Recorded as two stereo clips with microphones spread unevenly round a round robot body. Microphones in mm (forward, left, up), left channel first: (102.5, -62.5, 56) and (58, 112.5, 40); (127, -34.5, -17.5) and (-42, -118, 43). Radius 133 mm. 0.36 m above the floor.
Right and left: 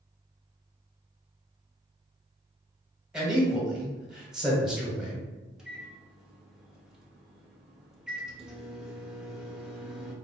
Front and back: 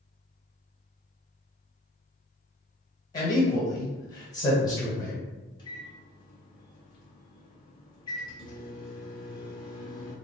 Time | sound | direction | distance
3.1 | a man speaking | 25° left | 1.2 m
5.6 | a microwave | 25° left | 0.8 m